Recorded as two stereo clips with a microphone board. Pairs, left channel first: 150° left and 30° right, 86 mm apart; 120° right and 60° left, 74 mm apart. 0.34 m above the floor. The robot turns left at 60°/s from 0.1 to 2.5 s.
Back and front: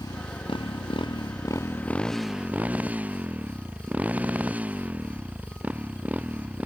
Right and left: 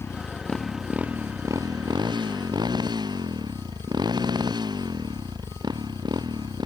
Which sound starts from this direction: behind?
A motorcycle, at 0.0 s.